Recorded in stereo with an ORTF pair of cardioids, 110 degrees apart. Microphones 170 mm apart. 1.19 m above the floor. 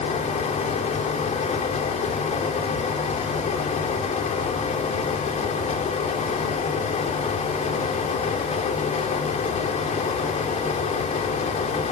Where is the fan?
45° left, 3 m.